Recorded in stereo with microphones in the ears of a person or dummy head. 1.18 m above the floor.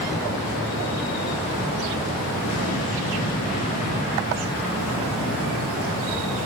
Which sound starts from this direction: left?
An explosion, at 2.4 s.